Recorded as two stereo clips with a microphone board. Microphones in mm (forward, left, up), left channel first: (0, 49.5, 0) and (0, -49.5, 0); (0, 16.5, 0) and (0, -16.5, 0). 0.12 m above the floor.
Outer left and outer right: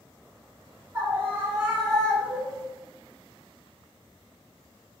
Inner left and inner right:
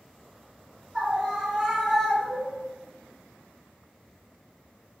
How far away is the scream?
About 1.8 m.